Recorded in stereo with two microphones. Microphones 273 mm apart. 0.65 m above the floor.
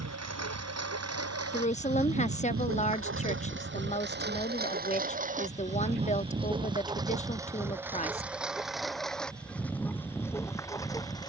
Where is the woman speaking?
25° left (ahead or behind).